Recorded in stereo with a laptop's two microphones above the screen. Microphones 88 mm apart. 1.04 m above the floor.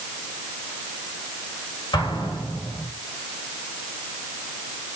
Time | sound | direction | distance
1.9 | an explosion | 60° left (ahead or behind) | 4 m